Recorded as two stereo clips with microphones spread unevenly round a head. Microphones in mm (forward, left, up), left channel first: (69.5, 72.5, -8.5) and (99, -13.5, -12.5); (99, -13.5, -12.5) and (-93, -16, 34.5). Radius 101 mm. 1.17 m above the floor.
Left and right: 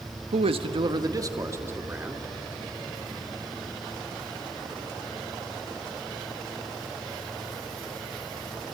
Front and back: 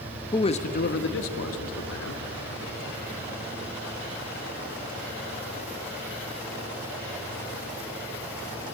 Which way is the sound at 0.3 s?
70° right.